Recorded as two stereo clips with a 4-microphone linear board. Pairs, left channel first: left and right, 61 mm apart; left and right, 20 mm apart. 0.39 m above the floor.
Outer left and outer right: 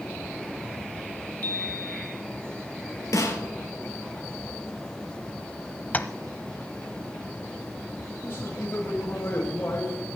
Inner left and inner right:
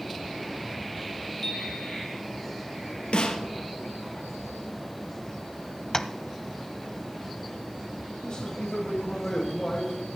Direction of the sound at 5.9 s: 30° left (ahead or behind).